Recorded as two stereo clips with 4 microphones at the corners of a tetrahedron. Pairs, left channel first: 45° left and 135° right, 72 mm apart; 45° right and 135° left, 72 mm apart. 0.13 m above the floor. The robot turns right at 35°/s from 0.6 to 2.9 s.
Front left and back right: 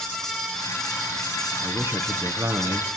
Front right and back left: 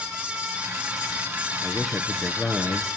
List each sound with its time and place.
1.6 s a man speaking: 140° right, 1.8 m; by 2.9 s 95° right, 1.8 m